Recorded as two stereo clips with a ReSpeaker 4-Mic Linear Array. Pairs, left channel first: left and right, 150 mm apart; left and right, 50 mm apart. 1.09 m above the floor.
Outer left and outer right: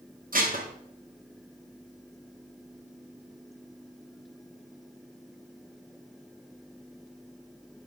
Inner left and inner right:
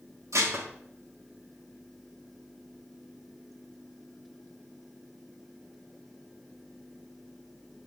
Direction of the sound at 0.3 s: 70° right (ahead or behind).